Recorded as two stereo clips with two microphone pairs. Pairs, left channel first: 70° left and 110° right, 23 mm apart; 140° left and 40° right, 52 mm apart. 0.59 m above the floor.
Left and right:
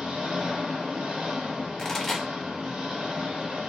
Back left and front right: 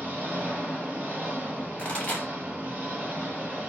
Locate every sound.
0.0 s an engine running: 100° right, 1.0 m
1.8 s a pop: 110° left, 1.1 m